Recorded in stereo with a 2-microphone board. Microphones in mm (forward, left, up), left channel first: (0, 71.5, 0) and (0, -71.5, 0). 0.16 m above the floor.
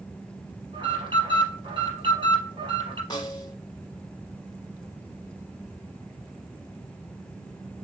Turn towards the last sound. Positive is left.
turn(degrees=30)  # may be behind; listen again after turning